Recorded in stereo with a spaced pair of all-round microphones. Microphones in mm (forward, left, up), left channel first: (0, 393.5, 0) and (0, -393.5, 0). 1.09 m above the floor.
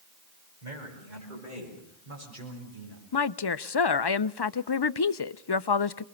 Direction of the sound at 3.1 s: 35° left (ahead or behind).